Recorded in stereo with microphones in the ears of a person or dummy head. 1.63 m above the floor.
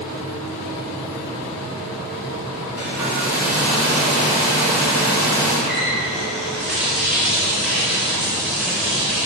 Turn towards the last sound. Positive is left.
turn(degrees=0)  # may be behind; listen again after turning